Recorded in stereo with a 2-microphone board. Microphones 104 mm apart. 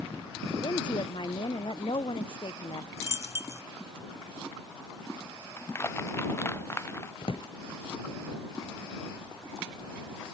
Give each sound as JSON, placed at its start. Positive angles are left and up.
{"t": 0.6, "sound": "a woman speaking", "side_deg": 50}
{"t": 3.0, "sound": "a dropped coin", "side_deg": -25}
{"t": 5.6, "sound": "crushing", "side_deg": 25}
{"t": 7.2, "sound": "a drawer", "side_deg": 65}